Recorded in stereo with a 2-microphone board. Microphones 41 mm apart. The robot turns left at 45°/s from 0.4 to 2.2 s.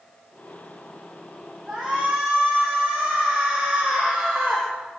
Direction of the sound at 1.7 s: 5° left (ahead or behind).